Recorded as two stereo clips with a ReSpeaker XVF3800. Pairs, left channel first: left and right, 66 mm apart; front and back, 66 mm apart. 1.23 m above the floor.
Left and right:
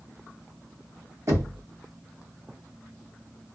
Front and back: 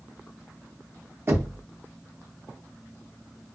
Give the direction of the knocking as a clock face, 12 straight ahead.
4 o'clock.